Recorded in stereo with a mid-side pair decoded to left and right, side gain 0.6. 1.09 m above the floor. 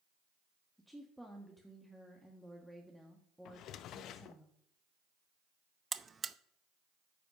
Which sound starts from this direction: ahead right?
A buzzer, at 5.9 s.